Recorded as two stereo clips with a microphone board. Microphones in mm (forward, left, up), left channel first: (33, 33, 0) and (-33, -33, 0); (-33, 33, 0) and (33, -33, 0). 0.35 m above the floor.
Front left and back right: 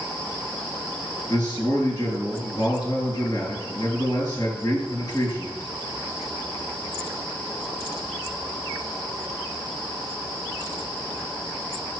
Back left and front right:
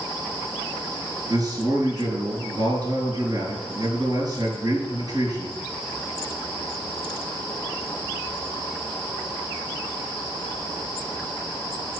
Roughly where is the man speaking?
Ahead.